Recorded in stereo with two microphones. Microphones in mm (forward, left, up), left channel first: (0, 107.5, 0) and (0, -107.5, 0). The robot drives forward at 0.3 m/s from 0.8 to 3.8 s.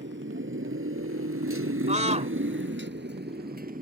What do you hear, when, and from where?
0.0 s a motorcycle: 60° right (ahead or behind); by 3.8 s 40° right (ahead or behind)
1.9 s a scream: 30° right (ahead or behind)